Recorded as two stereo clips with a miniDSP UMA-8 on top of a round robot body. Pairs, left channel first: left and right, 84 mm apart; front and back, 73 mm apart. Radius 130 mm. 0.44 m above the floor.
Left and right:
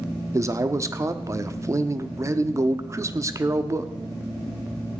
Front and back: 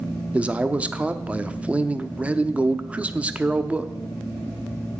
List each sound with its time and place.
0.3 s a man speaking: 115° right, 1.1 m